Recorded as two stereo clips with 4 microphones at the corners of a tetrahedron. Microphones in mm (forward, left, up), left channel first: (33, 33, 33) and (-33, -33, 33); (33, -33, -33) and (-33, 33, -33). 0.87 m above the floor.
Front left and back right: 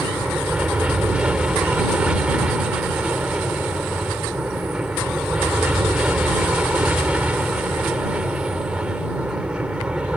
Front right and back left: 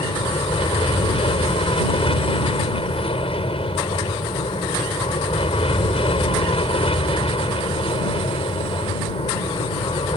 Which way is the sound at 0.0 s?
55° right.